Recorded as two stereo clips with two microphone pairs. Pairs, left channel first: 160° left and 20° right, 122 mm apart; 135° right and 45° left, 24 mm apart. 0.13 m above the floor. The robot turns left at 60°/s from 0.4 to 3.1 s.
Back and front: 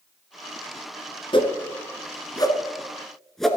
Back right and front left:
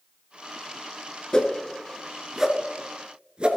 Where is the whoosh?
Straight behind, 1.2 m; by 3.5 s 75° left, 1.2 m.